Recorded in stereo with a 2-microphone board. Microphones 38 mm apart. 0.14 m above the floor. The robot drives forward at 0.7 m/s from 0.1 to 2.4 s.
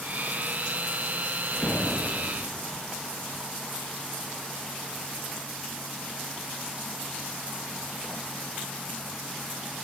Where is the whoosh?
55° left (ahead or behind), 1.8 m; by 2.8 s 50° left (ahead or behind), 2 m.